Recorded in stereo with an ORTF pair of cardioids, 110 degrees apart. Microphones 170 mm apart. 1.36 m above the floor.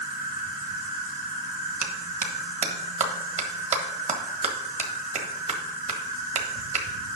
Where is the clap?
40° right, 1.6 m.